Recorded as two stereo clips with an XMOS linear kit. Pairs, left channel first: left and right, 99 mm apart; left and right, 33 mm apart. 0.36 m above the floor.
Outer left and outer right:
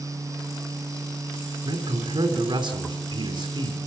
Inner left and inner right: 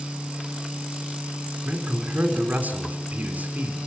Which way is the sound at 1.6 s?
45° right (ahead or behind).